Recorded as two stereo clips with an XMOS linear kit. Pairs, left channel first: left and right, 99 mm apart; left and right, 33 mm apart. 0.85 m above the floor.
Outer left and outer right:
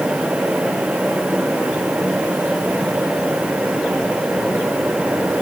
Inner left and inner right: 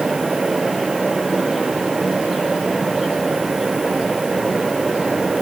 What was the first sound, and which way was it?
Only background noise.